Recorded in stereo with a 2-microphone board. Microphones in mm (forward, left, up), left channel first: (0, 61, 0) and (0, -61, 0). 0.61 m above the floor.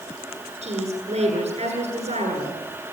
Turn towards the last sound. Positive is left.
turn(degrees=-65)  # may be behind; listen again after turning